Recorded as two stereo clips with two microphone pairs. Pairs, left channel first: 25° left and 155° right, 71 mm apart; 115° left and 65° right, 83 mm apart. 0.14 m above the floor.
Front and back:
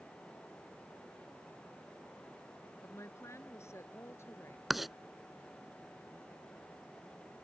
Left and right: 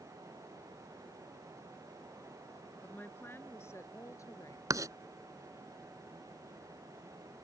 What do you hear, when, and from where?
2.8 s a woman speaking: 50° left; by 4.6 s 75° left
4.7 s writing: 70° right